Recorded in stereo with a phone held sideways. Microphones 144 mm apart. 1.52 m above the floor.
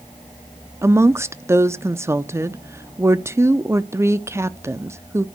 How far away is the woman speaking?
About 0.5 m.